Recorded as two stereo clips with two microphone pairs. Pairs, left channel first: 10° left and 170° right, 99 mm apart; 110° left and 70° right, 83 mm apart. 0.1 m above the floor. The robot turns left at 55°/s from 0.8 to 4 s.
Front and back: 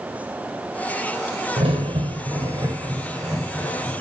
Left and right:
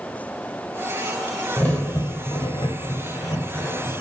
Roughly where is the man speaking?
No man speaking in this recording.